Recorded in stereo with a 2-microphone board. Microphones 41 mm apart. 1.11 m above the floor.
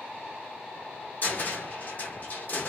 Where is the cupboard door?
45° left (ahead or behind), 0.9 m.